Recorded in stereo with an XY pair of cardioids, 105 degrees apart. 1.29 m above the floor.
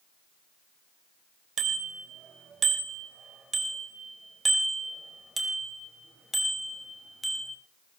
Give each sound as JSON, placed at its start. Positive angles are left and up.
{"t": 1.6, "sound": "a bicycle bell", "azimuth_deg": -55, "distance_m": 4.0}